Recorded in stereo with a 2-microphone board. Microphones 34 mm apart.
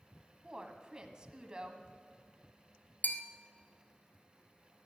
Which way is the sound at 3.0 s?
65° left (ahead or behind).